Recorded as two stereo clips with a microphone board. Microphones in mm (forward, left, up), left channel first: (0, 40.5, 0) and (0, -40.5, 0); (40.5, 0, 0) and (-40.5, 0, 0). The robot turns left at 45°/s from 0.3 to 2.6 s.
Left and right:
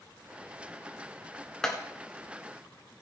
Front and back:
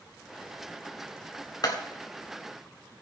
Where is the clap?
10° left, 1.8 m; by 1.8 s 5° left, 1.8 m.